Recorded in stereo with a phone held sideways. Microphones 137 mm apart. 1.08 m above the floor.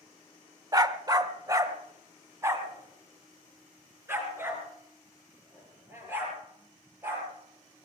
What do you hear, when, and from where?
0.7 s a dog barking: 30° right (ahead or behind), 0.8 m; by 7.9 s 15° right (ahead or behind), 8.5 m